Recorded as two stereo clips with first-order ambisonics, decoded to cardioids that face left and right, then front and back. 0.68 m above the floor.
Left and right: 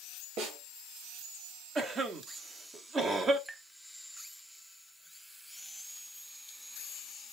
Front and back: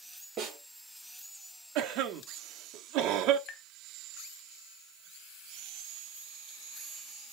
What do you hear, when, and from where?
0.4 s a snare drum: 105° right, 3.5 m
1.8 s a cough: 155° right, 1.0 m
3.5 s tapping: 15° right, 0.6 m